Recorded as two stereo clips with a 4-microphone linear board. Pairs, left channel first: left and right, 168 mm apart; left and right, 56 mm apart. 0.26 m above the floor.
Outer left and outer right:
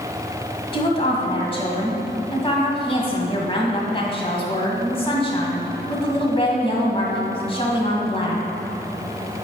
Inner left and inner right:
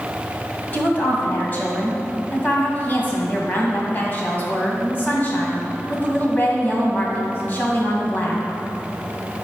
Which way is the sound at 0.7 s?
30° left (ahead or behind).